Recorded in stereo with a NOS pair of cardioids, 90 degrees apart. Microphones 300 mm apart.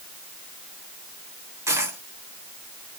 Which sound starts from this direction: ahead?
A dropped coin, at 1.7 s.